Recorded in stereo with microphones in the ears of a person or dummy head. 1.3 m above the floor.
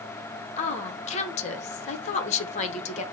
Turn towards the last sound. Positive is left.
turn(degrees=40)  # may be behind; listen again after turning